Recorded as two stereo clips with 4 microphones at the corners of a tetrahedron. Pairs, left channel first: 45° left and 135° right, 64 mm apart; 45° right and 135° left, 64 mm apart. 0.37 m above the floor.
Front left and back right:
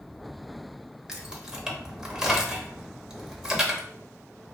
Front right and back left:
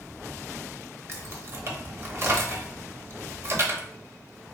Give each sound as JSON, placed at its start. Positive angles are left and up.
{"t": 1.1, "sound": "keys jangling", "azimuth_deg": 150, "distance_m": 0.7}